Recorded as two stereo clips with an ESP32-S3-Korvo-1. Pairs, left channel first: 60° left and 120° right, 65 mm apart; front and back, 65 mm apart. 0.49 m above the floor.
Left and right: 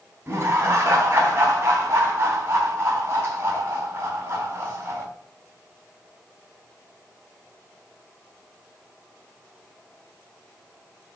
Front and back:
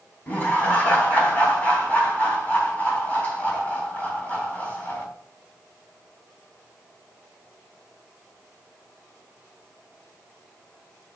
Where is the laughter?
70° right, 3.5 m.